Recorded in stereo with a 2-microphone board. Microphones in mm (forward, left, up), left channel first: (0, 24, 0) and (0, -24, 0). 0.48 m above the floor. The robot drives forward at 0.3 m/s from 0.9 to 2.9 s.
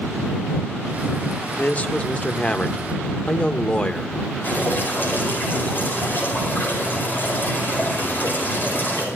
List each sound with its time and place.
1.6 s a man speaking: 30° left (ahead or behind), 0.8 m; by 4.2 s 25° left (ahead or behind), 0.9 m
4.4 s dripping: 40° left (ahead or behind), 8.5 m